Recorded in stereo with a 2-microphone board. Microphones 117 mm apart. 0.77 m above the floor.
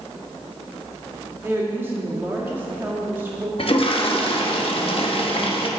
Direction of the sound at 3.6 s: 55° left (ahead or behind).